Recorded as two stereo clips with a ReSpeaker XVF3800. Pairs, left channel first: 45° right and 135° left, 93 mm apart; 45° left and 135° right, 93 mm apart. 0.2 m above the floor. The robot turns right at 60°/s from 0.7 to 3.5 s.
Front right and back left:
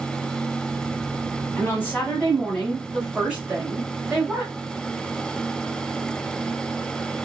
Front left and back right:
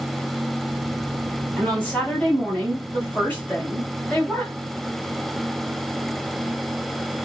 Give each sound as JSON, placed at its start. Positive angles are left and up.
{"t": 1.6, "sound": "a woman speaking", "azimuth_deg": -25, "distance_m": 1.7}